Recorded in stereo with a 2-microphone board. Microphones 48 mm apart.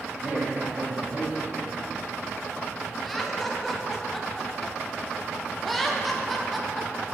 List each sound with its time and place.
0.2 s a man speaking: 40° right (ahead or behind), 2.5 m
3.0 s laughter: 5° left (ahead or behind), 0.9 m